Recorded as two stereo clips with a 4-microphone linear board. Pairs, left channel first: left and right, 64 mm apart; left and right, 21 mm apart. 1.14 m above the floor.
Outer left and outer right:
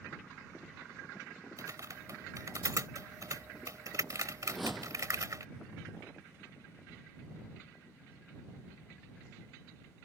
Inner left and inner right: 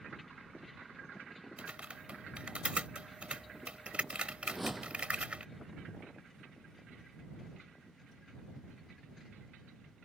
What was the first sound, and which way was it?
Typing on a keyboard, 60° right (ahead or behind).